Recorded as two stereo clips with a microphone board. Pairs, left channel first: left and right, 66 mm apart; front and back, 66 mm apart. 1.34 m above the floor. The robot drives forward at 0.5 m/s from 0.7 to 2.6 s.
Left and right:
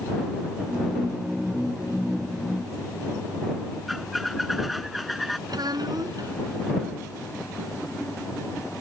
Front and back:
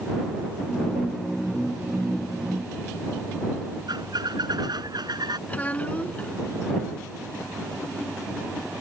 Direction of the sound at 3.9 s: Straight behind.